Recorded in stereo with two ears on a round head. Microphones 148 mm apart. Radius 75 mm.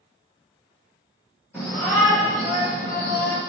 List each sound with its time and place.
1.5 s a shout: 15° left (ahead or behind), 1.7 m; by 3.4 s 65° left (ahead or behind), 1.0 m